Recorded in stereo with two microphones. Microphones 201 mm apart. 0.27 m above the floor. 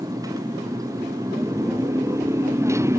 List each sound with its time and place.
0.0 s a motorcycle: 15° right (ahead or behind)